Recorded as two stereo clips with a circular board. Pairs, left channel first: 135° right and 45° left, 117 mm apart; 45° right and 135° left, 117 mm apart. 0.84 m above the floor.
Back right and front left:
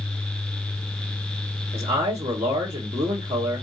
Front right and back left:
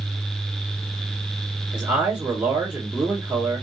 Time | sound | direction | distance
1.7 | a man speaking | 55° left | 2.0 m